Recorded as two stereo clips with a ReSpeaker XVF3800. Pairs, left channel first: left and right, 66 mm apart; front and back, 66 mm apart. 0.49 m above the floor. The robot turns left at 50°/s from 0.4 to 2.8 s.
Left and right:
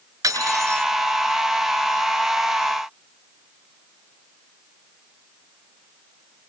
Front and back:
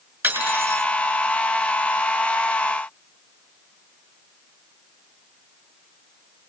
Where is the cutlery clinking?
130° right, 3.5 m; by 0.8 s 155° right, 3.5 m.